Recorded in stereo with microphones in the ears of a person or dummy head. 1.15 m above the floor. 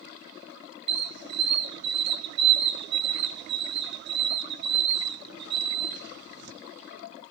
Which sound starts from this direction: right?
A squeak, at 0.9 s.